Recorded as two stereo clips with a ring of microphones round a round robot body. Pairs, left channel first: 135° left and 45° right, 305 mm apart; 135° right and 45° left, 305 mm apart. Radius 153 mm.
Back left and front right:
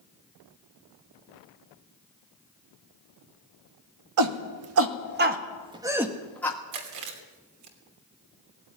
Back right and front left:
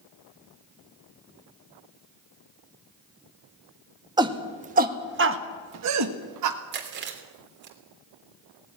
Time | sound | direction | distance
4.2 | a shout | 30° right | 1.6 m
6.7 | chewing | 15° right | 3 m